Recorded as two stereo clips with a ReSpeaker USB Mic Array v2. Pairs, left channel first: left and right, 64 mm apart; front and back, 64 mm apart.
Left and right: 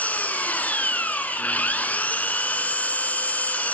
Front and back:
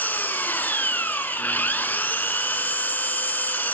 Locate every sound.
0.0 s an engine running: 40° left, 0.8 m